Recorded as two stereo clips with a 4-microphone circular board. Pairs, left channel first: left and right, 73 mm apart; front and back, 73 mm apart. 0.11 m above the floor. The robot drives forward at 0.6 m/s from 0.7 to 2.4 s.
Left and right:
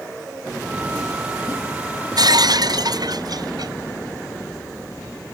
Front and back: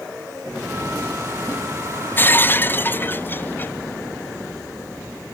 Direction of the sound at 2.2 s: 60° right.